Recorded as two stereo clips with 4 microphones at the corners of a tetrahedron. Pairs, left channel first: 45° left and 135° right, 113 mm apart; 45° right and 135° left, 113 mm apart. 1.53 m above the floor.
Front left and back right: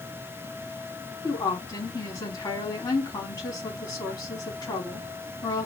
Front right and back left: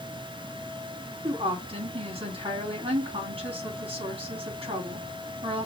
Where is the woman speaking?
100° left, 3 m.